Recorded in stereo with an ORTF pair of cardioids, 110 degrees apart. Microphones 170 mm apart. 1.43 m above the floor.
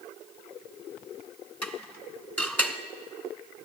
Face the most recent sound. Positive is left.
turn(degrees=10)